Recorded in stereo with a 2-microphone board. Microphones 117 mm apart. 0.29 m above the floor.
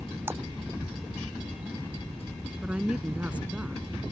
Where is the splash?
20° right (ahead or behind).